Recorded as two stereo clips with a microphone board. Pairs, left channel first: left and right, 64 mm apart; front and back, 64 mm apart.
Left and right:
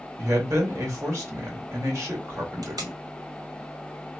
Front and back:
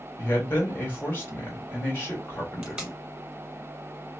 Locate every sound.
0.2 s a man speaking: 60° right, 1.8 m
2.6 s tape being pulled: 105° right, 1.5 m